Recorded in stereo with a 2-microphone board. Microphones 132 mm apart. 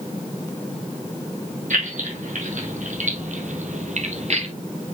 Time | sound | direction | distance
1.7 | keys jangling | 75° right (ahead or behind) | 4 m